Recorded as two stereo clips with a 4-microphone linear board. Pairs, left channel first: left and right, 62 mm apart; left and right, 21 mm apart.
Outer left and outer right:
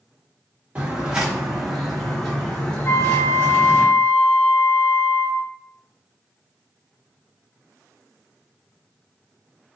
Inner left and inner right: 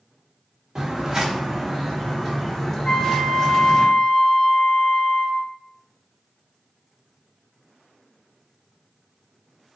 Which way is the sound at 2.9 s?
45° left (ahead or behind).